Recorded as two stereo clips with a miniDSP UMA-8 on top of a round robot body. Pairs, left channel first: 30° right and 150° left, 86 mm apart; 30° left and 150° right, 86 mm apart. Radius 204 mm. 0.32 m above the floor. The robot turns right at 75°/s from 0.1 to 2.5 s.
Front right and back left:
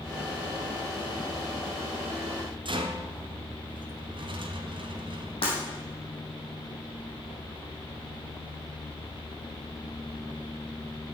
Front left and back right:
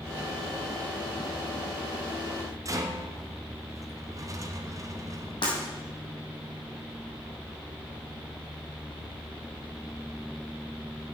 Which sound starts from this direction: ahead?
Breaking glass, at 5.4 s.